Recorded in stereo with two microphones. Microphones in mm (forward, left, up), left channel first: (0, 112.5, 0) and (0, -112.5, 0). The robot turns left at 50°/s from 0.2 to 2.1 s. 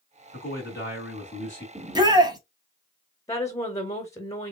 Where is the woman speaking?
15° left (ahead or behind), 1.0 m.